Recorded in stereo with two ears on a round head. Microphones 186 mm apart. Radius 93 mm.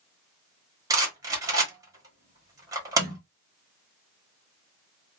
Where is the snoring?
I don't hear snoring.